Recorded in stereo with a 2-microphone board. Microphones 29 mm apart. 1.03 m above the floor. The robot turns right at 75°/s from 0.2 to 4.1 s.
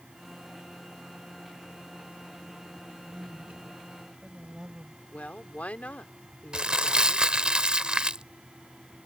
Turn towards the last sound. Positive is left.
turn(degrees=-35)  # may be behind; listen again after turning